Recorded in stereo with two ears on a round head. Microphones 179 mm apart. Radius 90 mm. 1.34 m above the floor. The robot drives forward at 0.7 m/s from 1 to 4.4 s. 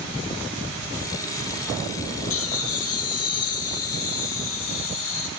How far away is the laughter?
About 2.5 m.